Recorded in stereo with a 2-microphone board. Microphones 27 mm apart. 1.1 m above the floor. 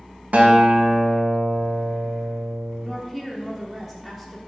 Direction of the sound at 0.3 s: 65° right (ahead or behind).